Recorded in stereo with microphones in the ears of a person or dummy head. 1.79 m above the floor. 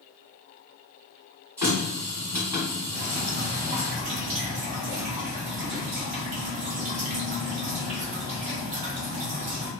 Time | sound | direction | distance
1.6 | a running tap | 10° right (ahead or behind) | 1.4 m
2.9 | dripping | 35° right (ahead or behind) | 0.6 m